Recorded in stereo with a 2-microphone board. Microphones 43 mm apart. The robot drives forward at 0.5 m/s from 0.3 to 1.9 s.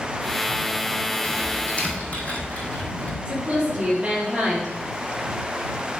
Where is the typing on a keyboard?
25° left (ahead or behind), 3 m; by 3.1 s 30° left (ahead or behind), 2.5 m.